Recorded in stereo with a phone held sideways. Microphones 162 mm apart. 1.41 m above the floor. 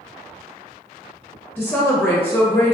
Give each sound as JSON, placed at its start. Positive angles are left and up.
{"t": 1.6, "sound": "a woman speaking", "side_deg": 10, "distance_m": 0.7}